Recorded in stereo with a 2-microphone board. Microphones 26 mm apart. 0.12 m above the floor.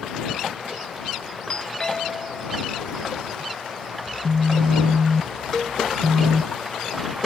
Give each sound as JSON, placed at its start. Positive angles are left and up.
{"t": 1.5, "sound": "a doorbell", "side_deg": 30}
{"t": 4.1, "sound": "a phone buzzing", "side_deg": -40}
{"t": 5.5, "sound": "a cowbell", "side_deg": 20}